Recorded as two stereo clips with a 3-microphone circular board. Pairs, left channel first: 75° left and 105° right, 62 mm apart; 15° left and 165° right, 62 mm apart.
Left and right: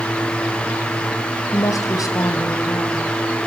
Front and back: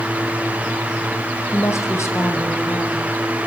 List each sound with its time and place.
1.5 s a woman speaking: 55° left, 5.5 m